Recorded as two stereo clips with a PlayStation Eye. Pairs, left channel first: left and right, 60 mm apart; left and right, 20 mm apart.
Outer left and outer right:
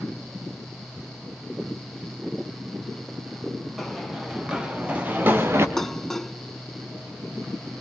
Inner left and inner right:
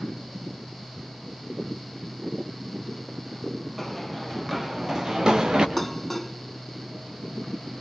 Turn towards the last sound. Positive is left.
turn(degrees=5)  # may be behind; listen again after turning